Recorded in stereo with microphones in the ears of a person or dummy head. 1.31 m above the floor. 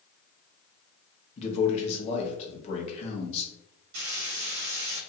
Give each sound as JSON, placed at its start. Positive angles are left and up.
{"t": 1.4, "sound": "a man speaking", "side_deg": 40, "distance_m": 0.9}
{"t": 3.9, "sound": "frying", "side_deg": -75, "distance_m": 1.3}